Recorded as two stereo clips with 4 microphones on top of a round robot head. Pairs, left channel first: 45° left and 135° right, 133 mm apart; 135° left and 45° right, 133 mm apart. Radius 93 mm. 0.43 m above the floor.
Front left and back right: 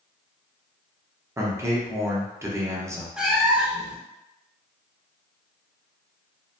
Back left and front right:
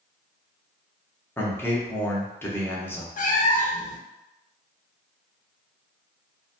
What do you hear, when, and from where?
1.4 s a man speaking: 175° right, 0.8 m
3.2 s a cat meowing: 140° left, 0.5 m